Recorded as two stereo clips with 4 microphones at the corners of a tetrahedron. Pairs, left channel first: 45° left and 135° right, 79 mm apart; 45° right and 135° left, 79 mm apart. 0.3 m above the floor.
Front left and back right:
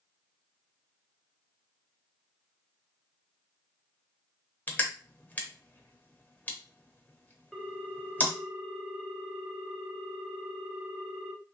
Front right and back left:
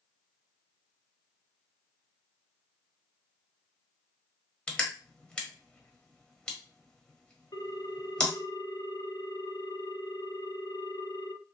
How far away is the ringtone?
About 0.6 m.